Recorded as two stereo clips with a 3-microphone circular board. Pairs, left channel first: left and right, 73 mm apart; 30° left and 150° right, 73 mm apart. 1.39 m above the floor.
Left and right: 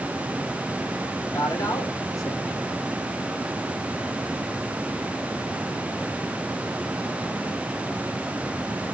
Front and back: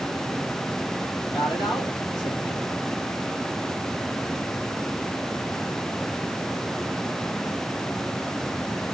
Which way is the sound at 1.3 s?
45° left.